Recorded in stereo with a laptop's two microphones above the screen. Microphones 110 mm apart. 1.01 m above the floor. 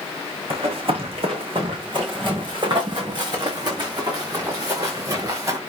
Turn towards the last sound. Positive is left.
turn(degrees=-30)  # may be behind; listen again after turning